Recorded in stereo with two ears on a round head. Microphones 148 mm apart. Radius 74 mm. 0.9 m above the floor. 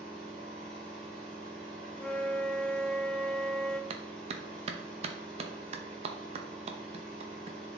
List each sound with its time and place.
0.0 s an engine running: 5° left (ahead or behind), 4 m
1.9 s a flute: 5° left (ahead or behind), 0.7 m
3.9 s a clap: 40° right (ahead or behind), 0.8 m